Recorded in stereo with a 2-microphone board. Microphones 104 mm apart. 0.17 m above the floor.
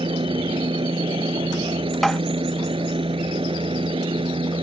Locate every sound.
0.0 s a helicopter: 60° right (ahead or behind)
2.0 s tapping: 5° left (ahead or behind)